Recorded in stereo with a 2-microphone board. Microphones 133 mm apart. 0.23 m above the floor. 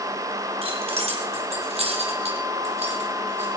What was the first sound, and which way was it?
Keys jangling, 50° right (ahead or behind).